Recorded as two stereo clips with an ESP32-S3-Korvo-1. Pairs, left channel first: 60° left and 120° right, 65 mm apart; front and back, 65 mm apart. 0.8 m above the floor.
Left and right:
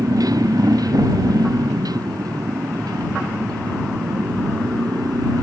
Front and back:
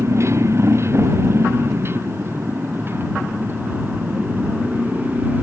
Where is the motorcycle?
135° right; by 5.4 s 120° right.